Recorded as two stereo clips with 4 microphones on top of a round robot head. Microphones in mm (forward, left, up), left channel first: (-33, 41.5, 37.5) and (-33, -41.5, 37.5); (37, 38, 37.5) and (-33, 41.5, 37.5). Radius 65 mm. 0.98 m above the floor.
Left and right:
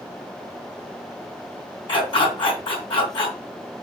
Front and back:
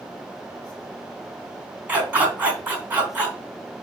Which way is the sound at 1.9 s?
110° left.